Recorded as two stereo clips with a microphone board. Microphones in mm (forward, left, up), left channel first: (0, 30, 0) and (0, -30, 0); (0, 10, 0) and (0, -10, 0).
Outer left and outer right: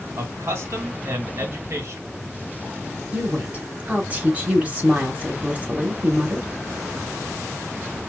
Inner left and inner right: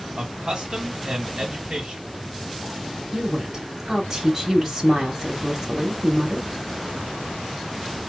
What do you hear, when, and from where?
0.2 s a man speaking: 45° right (ahead or behind), 2.5 m
3.1 s a woman speaking: 25° right (ahead or behind), 1.0 m